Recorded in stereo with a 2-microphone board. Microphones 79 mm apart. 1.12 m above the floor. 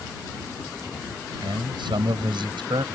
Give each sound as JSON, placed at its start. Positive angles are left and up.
{"t": 1.4, "sound": "a man speaking", "side_deg": -80}